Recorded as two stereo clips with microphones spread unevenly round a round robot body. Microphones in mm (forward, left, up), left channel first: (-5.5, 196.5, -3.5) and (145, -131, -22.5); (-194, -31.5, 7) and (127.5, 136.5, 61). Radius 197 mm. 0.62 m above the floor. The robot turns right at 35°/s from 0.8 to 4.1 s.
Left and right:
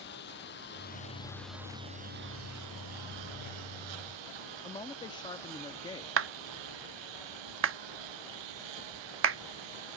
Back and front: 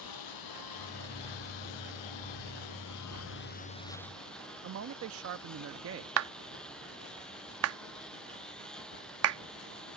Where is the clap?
20° right.